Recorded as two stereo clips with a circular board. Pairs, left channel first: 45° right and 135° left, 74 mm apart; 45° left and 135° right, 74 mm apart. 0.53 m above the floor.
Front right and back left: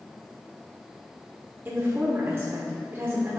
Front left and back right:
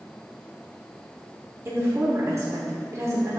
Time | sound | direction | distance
1.6 | a woman speaking | 175° right | 1.1 m